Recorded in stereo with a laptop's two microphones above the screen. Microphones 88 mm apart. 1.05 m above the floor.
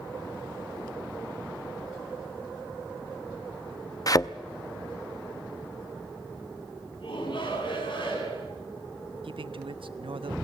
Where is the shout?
65° left (ahead or behind), 10 m.